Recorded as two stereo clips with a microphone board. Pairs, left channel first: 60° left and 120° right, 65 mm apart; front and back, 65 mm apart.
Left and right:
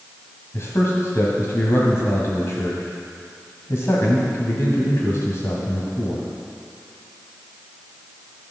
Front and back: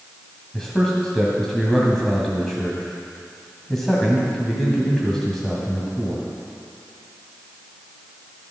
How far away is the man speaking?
About 1.8 m.